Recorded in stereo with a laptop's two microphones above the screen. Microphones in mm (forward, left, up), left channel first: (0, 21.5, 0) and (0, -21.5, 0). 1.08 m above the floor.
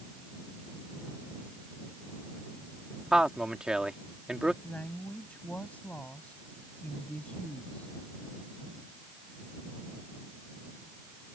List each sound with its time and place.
3.1 s a man speaking: 20° right (ahead or behind)
4.6 s a woman speaking: 35° left (ahead or behind)